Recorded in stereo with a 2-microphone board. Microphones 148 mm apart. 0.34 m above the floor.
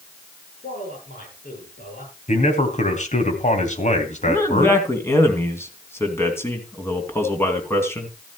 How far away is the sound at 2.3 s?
About 2.5 m.